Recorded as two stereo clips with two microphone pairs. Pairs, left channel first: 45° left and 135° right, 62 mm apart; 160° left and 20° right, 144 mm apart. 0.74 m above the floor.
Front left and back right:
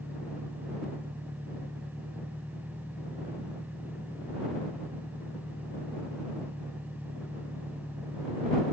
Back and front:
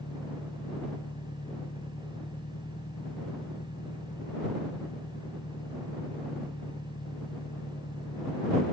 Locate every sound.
0.0 s an engine running: 165° left